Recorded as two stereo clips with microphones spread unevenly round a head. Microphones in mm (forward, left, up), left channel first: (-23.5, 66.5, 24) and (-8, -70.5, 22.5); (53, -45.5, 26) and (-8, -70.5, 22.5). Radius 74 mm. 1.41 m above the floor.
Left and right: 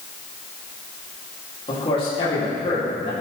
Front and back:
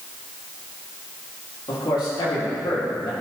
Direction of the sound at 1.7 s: 40° left.